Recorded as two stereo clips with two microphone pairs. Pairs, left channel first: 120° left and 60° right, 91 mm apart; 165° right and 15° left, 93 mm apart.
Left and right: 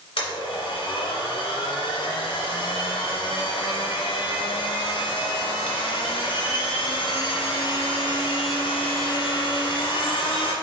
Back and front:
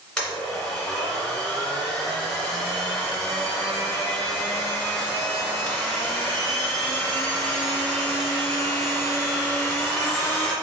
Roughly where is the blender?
Left.